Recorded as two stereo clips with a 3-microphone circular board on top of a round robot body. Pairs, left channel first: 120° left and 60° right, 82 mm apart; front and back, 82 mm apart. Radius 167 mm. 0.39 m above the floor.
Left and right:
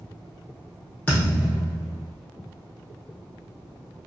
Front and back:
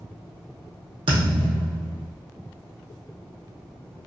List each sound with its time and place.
1.1 s a thud: 170° right, 0.7 m